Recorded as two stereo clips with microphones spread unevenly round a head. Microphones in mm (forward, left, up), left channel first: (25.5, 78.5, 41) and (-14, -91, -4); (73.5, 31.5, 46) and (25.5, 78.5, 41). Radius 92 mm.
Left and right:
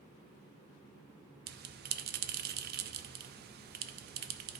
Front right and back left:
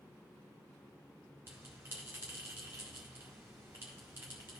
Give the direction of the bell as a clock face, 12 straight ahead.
5 o'clock.